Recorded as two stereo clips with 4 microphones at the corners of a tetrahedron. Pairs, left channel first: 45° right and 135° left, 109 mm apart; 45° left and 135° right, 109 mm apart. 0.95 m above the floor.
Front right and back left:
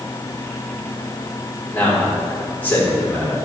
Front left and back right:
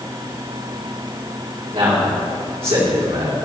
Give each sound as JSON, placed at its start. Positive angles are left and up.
{"t": 1.7, "sound": "a man speaking", "azimuth_deg": -115, "distance_m": 2.5}